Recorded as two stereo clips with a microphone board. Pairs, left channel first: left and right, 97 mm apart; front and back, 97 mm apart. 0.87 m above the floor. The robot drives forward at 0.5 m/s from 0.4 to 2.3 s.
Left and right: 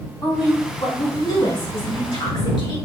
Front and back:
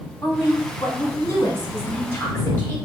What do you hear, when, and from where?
0.2 s a woman speaking: 50° left, 3 m; by 2.8 s 70° left, 2.5 m